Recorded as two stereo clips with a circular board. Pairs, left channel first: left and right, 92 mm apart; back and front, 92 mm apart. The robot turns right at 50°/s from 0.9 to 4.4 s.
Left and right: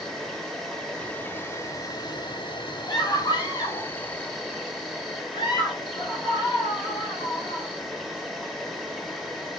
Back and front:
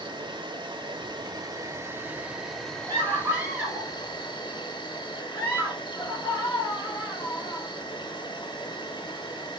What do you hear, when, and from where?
0.0 s an insect: straight ahead, 2 m; by 9.6 s 175° left, 2 m
2.9 s a scream: 40° left, 4 m; by 7.7 s 115° left, 4 m